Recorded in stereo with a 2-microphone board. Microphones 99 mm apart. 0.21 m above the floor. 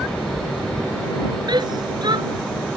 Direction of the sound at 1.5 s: 50° right (ahead or behind).